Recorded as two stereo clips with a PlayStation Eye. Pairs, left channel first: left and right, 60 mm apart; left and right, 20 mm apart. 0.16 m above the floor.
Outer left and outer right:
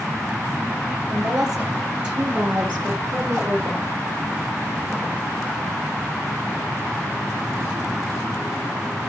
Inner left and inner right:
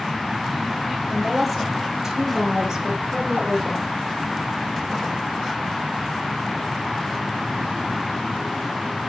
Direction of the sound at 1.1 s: 5° right (ahead or behind).